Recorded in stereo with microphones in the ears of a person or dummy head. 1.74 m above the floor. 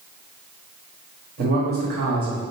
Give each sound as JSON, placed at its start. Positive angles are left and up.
{"t": 1.4, "sound": "a man speaking", "side_deg": -45, "distance_m": 1.2}